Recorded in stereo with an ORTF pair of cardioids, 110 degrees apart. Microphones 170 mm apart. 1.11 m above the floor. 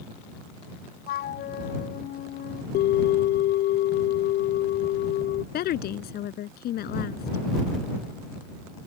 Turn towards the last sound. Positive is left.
turn(degrees=65)